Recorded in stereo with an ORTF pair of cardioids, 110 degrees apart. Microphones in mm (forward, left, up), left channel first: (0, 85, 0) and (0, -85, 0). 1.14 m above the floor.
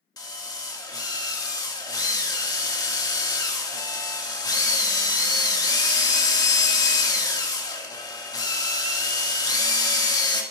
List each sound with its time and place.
0.2 s a drill: 20° left, 1.8 m